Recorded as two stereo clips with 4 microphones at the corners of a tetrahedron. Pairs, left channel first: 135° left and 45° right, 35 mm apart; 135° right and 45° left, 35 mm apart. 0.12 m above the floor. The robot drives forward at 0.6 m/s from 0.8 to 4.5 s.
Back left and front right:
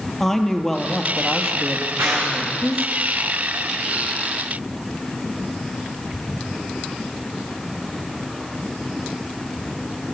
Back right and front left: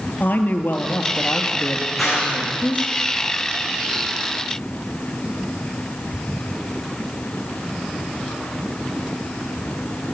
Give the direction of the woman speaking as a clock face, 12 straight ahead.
5 o'clock.